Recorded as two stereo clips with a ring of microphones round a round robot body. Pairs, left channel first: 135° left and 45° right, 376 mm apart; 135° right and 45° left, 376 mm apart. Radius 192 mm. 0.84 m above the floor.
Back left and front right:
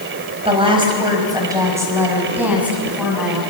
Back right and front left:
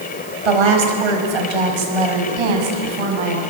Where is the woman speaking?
30° left, 4.5 m; by 3.4 s 45° left, 6 m.